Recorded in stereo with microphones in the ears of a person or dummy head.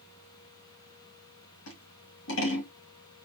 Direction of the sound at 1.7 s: 65° left (ahead or behind).